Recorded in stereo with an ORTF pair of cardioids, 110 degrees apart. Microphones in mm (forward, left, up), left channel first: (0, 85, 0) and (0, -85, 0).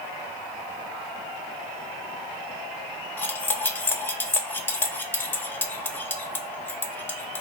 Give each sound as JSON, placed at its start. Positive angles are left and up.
{"t": 3.2, "sound": "cutlery clinking", "azimuth_deg": 10, "distance_m": 0.5}